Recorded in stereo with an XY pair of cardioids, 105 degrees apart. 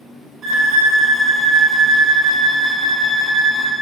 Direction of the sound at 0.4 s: 55° right.